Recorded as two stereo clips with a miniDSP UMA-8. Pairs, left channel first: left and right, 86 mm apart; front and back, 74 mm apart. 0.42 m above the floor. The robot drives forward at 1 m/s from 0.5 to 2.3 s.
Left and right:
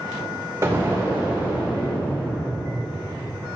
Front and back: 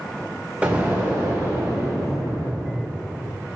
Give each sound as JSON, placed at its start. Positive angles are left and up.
{"t": 0.6, "sound": "an explosion", "azimuth_deg": -120, "distance_m": 1.7}